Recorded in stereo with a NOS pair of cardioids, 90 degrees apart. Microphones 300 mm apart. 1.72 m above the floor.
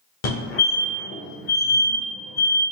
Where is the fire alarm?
65° left, 1.4 m.